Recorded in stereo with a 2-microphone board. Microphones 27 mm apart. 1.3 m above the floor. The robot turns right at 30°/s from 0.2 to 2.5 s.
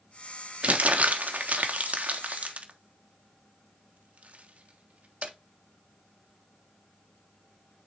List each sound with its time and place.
0.6 s crumpling: 55° right (ahead or behind), 1.1 m; by 5.3 s 65° right (ahead or behind), 1.1 m